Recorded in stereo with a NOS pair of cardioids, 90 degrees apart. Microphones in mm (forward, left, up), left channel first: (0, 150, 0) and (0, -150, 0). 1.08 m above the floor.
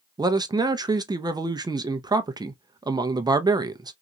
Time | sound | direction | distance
0.2 | a man speaking | 15° right | 0.7 m